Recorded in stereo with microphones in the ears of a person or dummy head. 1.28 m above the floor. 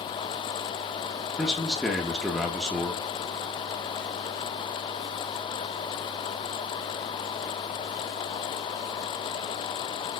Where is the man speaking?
Centre (ahead or behind), 0.5 m.